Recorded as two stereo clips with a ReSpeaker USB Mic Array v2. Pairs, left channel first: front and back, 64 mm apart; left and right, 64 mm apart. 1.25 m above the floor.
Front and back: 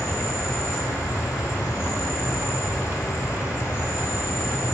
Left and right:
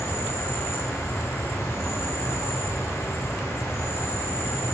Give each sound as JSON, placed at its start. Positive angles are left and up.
{"t": 0.0, "sound": "an insect", "azimuth_deg": 40, "distance_m": 4.5}